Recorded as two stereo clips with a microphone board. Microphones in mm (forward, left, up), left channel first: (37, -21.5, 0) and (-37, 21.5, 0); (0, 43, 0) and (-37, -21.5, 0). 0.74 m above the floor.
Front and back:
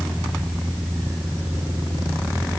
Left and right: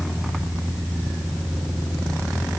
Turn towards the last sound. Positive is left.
No sound to turn to.